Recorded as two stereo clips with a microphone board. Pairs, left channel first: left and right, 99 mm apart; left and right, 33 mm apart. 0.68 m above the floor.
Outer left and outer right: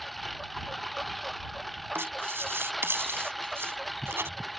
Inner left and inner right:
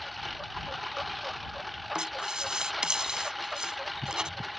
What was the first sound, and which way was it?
A lawn mower, centre (ahead or behind).